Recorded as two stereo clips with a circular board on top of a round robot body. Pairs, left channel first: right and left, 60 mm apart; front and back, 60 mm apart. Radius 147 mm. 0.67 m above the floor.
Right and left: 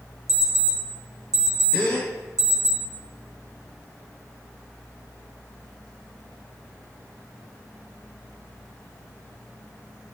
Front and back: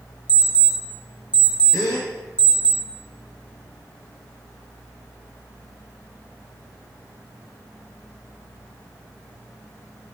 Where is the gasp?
25° right, 0.8 m.